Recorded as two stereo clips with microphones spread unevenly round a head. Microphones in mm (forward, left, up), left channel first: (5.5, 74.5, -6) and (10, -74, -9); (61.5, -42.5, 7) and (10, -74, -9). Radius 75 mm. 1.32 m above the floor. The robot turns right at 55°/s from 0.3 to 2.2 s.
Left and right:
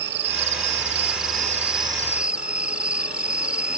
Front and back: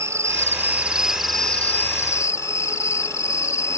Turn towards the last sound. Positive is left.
turn(degrees=-5)